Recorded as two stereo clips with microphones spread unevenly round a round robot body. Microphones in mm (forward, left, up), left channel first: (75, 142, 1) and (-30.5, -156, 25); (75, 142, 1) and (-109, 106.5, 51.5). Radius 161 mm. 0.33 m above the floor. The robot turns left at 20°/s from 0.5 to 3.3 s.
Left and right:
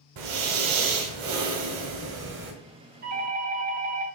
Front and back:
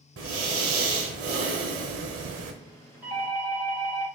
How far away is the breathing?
About 0.9 m.